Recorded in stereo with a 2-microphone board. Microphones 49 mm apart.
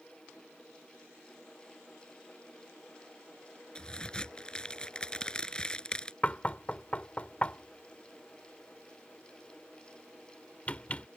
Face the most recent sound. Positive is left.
turn(degrees=30)  # may be behind; listen again after turning